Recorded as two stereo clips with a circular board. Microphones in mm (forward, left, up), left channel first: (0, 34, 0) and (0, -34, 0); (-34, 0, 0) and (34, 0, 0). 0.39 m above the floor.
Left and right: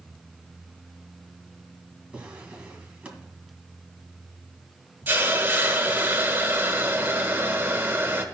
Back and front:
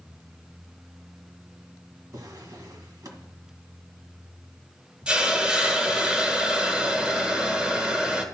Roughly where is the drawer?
Ahead.